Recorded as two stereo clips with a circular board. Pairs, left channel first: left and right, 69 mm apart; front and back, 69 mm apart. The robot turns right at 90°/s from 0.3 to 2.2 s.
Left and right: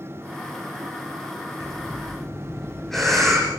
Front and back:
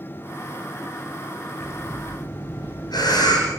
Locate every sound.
1.6 s breathing: 50° right, 8.5 m; by 3.5 s 5° left, 8.5 m